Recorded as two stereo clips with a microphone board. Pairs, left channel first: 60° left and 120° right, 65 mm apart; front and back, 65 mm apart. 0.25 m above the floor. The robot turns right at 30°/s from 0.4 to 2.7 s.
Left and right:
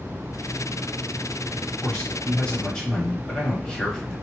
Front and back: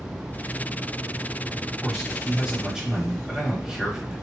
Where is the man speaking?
90° left, 0.9 m; by 4.1 s 115° left, 0.9 m.